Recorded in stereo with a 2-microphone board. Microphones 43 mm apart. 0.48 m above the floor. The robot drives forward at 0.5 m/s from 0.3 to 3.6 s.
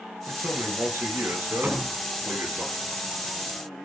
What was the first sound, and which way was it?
A man speaking, 65° right (ahead or behind).